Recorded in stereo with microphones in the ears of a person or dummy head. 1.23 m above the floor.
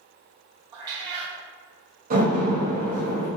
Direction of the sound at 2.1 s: 45° right (ahead or behind).